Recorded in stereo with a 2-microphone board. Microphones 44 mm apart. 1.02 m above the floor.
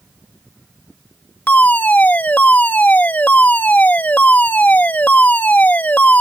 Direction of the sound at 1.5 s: 40° left (ahead or behind).